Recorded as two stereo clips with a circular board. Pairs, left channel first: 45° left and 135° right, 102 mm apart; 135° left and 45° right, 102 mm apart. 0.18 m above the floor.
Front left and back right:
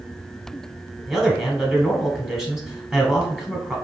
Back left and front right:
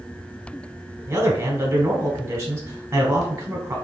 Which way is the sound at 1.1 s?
55° right.